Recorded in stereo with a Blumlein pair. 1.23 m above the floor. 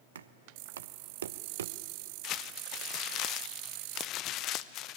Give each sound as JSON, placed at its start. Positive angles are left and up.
{"t": 0.1, "sound": "knocking", "azimuth_deg": -65, "distance_m": 0.7}
{"t": 2.2, "sound": "crumpling", "azimuth_deg": 35, "distance_m": 0.5}